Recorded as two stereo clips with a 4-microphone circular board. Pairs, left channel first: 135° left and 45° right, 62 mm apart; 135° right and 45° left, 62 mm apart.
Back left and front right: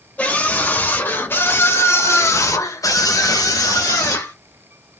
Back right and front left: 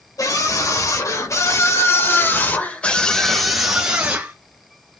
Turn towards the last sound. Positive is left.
turn(degrees=110)